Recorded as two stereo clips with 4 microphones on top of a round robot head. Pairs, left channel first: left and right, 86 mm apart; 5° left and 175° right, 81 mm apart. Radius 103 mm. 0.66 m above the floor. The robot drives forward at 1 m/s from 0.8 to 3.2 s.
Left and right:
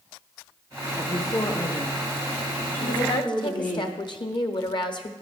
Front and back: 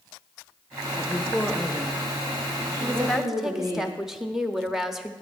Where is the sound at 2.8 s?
75° left, 1.0 m; by 5.1 s 100° left, 1.0 m.